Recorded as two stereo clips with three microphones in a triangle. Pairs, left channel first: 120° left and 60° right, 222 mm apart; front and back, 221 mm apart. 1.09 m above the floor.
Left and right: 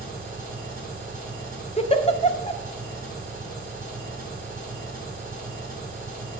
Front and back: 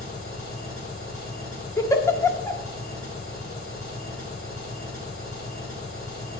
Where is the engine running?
10° right, 4.5 m.